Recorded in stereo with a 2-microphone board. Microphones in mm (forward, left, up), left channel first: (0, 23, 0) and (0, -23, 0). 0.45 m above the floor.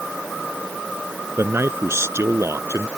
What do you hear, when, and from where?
1.4 s a man speaking: 65° right (ahead or behind); by 2.9 s 75° right (ahead or behind)